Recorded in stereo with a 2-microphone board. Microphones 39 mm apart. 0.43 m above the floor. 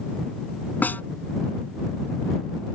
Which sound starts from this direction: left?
A snare drum, at 0.8 s.